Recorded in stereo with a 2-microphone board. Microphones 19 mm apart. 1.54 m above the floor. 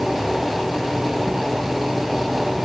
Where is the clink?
I don't hear a clink.